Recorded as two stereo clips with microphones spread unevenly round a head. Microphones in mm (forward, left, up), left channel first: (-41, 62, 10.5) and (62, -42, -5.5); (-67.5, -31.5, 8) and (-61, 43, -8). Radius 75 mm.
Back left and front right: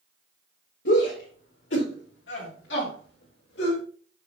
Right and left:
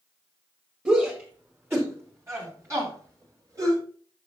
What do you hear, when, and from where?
0.8 s a shout: 155° left, 4 m; by 3.8 s 120° left, 5 m